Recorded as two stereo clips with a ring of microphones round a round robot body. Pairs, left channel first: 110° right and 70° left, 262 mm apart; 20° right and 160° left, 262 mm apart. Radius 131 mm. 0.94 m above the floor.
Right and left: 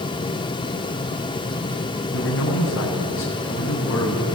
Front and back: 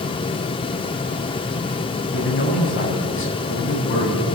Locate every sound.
2.1 s a man speaking: 70° right, 8 m